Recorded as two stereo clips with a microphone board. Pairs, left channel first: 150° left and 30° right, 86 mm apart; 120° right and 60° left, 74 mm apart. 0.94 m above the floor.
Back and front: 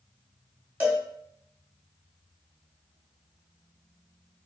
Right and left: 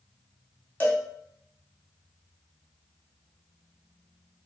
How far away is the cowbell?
About 0.9 m.